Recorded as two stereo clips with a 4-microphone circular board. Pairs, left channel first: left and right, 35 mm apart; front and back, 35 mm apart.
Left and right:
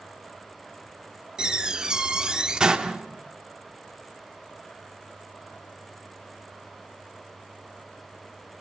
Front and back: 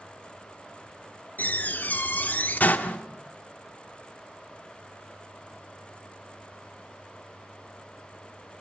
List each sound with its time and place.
1.4 s a door slam: 25° right, 1.5 m